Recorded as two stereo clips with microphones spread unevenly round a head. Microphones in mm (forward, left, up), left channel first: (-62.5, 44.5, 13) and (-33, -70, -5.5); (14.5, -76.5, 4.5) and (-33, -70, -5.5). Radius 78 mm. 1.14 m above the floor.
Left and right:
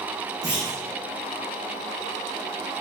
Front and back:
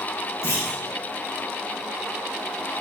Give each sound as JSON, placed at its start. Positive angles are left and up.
{"t": 0.4, "sound": "a clunk", "azimuth_deg": 10, "distance_m": 1.9}